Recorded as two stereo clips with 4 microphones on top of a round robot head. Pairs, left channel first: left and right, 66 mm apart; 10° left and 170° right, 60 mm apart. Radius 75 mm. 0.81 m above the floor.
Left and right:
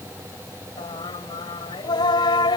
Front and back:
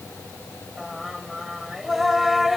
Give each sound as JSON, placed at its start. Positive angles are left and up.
{"t": 0.8, "sound": "singing", "azimuth_deg": 105}